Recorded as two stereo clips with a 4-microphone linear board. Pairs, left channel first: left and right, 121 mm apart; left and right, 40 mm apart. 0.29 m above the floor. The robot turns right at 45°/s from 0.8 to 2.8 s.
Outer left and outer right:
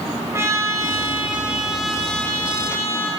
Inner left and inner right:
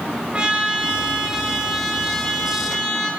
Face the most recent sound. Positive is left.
turn(degrees=45)